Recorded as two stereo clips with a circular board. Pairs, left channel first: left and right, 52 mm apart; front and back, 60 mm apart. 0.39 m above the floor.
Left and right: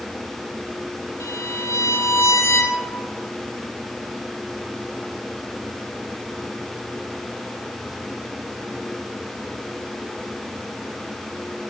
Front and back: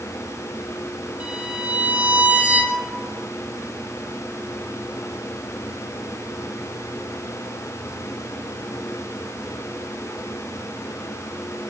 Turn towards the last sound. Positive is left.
turn(degrees=110)